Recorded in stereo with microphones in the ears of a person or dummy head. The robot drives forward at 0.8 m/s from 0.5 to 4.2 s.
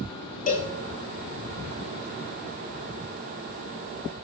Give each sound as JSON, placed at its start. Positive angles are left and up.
{"t": 0.5, "sound": "a cowbell", "side_deg": 45, "distance_m": 2.0}